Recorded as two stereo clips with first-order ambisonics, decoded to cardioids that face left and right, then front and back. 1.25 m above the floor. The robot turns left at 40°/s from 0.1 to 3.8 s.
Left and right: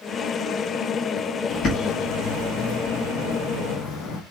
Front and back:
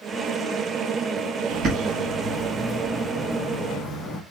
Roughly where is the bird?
Behind left.